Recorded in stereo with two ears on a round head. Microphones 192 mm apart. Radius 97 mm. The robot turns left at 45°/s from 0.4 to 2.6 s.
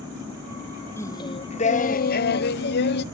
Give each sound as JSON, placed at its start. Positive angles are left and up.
{"t": 1.0, "sound": "singing", "azimuth_deg": 165, "distance_m": 0.5}